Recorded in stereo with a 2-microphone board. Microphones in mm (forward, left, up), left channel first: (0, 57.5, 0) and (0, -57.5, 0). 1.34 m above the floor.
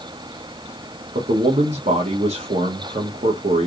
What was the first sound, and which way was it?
A man speaking, 75° right (ahead or behind).